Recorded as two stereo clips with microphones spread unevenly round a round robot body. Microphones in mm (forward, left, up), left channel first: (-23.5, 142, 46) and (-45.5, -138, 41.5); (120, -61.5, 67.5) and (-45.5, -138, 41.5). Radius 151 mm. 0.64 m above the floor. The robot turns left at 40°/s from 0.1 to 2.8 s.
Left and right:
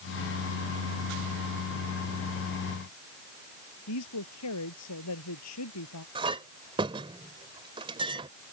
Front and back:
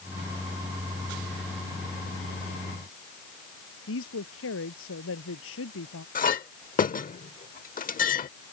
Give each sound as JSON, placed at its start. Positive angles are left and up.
{"t": 3.9, "sound": "a woman speaking", "azimuth_deg": 45}
{"t": 6.2, "sound": "a clink", "azimuth_deg": -20}